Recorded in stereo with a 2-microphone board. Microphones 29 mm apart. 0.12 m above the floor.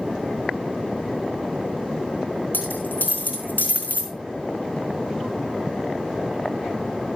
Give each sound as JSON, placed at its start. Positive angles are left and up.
{"t": 2.5, "sound": "a dropped coin", "side_deg": 75, "distance_m": 4.0}